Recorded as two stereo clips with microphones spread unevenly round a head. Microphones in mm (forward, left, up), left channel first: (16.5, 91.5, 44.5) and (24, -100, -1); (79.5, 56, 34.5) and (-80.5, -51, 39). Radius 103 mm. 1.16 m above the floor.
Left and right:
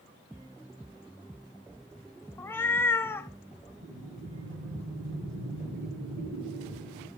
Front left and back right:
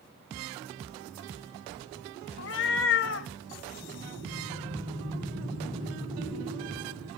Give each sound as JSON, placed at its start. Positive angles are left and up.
{"t": 2.4, "sound": "a cat meowing", "azimuth_deg": 25, "distance_m": 0.7}
{"t": 3.8, "sound": "breathing", "azimuth_deg": -90, "distance_m": 8.0}